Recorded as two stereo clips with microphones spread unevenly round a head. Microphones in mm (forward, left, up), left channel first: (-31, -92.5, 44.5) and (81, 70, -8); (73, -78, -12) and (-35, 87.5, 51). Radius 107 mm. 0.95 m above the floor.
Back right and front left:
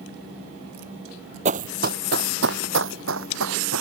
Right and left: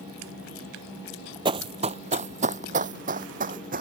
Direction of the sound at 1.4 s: 120° left.